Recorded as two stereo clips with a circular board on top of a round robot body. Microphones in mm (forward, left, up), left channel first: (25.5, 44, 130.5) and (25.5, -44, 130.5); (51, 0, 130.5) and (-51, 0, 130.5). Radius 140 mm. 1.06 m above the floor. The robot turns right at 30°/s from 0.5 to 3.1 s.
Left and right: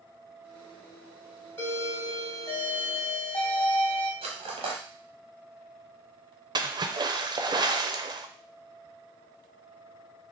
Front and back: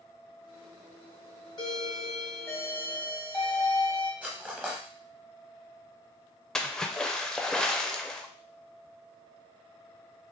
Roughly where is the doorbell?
Ahead left.